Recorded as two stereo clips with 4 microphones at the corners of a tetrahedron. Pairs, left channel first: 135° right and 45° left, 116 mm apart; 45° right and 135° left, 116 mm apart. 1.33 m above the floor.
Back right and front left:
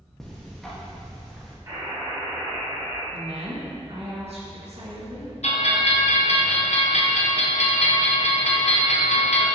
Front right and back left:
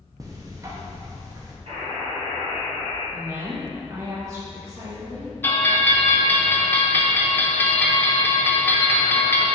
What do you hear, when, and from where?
0.2 s ticking: 140° left, 0.7 m
1.7 s a buzzer: 105° left, 1.8 m
3.1 s a woman speaking: 70° left, 1.4 m
5.4 s a bell: 120° right, 0.5 m